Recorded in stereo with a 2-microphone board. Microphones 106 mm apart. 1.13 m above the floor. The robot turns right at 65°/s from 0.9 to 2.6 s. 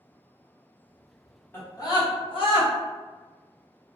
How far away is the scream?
About 1.0 m.